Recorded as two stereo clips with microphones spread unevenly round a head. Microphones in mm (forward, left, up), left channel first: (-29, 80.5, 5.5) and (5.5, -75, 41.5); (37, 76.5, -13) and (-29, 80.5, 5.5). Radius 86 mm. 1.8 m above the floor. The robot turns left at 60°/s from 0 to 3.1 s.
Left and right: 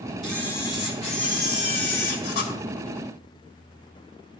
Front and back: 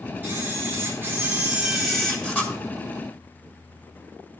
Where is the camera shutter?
160° right, 1.8 m; by 2.5 s 65° left, 1.8 m.